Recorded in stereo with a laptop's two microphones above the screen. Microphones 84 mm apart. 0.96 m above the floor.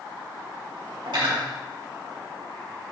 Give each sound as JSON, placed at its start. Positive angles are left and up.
{"t": 1.1, "sound": "cutlery clinking", "side_deg": -75, "distance_m": 3.5}